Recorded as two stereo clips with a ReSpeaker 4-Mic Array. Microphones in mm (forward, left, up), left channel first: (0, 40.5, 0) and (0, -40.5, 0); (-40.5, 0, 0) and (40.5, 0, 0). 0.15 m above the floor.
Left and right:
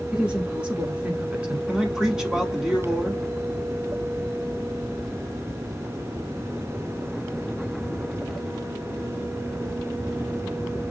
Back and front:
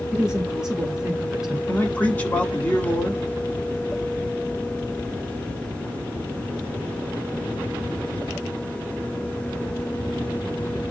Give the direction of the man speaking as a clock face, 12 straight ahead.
5 o'clock.